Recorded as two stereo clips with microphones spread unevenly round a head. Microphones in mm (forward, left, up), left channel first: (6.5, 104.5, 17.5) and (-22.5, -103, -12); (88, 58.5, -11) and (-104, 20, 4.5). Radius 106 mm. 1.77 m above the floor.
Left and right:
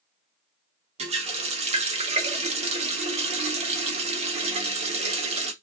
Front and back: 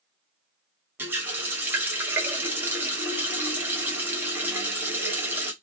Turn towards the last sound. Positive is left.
turn(degrees=-120)